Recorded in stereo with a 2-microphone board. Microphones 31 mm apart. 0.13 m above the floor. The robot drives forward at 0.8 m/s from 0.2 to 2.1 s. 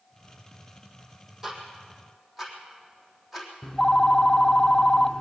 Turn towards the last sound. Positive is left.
turn(degrees=20)  # may be behind; listen again after turning